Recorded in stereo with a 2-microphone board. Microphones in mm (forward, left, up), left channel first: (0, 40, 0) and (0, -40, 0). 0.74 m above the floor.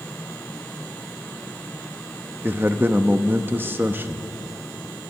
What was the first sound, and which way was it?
A man speaking, 25° right (ahead or behind).